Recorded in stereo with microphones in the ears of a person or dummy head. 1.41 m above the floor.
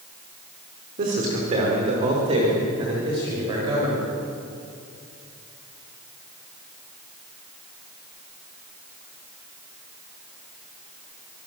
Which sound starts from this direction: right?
A man speaking, at 1.0 s.